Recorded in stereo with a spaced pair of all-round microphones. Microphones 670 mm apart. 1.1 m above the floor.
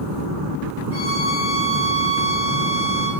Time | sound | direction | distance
0.9 | a violin | 20° right (ahead or behind) | 3.5 m